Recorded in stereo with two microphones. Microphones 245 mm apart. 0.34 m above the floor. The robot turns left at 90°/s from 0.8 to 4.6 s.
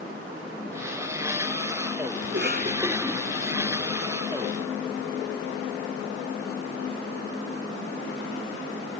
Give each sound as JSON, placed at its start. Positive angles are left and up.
{"t": 2.2, "sound": "a cough", "side_deg": -60}